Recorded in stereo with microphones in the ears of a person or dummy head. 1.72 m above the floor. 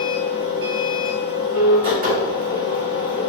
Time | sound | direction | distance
0.0 | a machine running | 40° right (ahead or behind) | 1.7 m